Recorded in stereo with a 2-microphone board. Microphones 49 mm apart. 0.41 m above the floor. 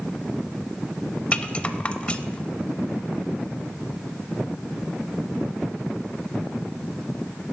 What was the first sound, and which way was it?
A rattle, 25° left (ahead or behind).